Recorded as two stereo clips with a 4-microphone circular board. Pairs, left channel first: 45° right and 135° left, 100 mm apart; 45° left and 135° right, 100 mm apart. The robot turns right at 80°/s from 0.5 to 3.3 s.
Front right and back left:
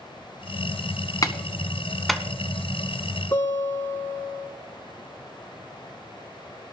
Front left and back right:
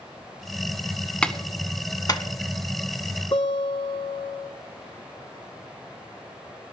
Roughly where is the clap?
Ahead right.